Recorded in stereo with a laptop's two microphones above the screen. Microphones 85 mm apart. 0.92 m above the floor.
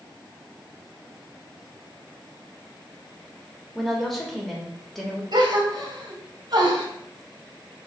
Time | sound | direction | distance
3.8 | a woman speaking | 5° left (ahead or behind) | 1.3 m
5.3 | a gasp | 60° right (ahead or behind) | 1.4 m